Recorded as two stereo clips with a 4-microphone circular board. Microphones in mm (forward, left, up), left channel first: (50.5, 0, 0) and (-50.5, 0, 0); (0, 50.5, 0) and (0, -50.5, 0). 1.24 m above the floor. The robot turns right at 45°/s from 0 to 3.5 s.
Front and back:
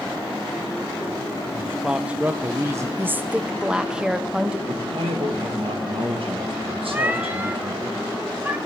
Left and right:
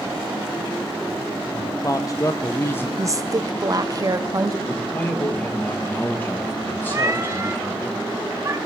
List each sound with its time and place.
1.5 s a man speaking: 85° left, 0.5 m; by 2.9 s 145° left, 0.5 m
3.0 s a woman speaking: 125° right, 0.6 m; by 4.6 s 105° right, 0.6 m
4.7 s a man speaking: 160° left, 1.6 m
6.9 s a cat meowing: 120° right, 0.6 m